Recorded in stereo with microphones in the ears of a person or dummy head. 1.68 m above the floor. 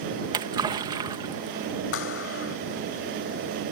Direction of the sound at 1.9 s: 85° left.